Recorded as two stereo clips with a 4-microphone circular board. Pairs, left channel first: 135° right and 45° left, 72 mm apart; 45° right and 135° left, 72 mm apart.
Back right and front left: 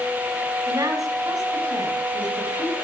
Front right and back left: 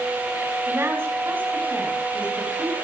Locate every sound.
0.7 s a woman speaking: 80° left, 6 m; by 2.8 s 55° left, 5 m